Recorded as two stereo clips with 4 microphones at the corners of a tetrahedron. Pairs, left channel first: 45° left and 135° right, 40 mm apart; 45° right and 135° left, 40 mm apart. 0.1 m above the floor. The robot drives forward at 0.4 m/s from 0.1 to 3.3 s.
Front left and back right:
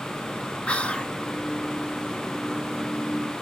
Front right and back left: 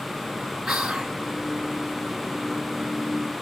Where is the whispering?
55° left, 1.6 m; by 1.1 s 65° left, 1.6 m.